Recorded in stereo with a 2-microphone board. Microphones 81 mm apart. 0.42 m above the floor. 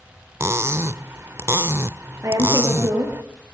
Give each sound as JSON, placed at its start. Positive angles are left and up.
{"t": 0.4, "sound": "cutlery clinking", "side_deg": -35, "distance_m": 0.5}
{"t": 2.2, "sound": "a woman speaking", "side_deg": -40, "distance_m": 8.0}